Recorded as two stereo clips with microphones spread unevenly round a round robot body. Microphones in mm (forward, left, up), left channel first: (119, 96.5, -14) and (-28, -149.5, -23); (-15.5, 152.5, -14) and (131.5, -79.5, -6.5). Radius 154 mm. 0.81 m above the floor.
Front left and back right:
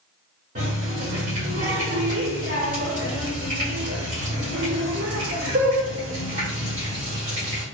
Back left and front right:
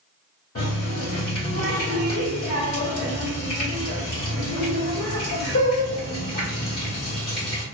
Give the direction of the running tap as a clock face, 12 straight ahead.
6 o'clock.